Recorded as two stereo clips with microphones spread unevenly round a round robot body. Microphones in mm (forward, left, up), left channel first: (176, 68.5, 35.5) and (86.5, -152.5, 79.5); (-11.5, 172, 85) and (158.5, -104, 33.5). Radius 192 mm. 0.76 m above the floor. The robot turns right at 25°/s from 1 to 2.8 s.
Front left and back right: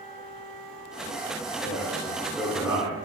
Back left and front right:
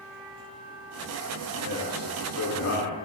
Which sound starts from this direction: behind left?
A man speaking, at 1.6 s.